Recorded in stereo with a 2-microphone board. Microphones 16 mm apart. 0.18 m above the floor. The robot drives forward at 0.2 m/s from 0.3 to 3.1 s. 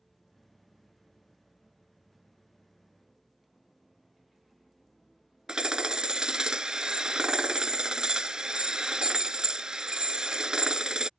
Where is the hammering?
65° right (ahead or behind).